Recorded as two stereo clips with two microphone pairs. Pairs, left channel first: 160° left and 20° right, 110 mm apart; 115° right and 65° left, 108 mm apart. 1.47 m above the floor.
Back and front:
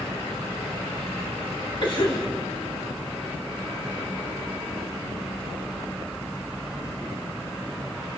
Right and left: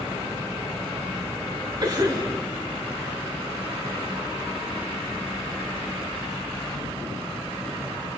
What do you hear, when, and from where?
1.8 s a cough: 115° left, 3.5 m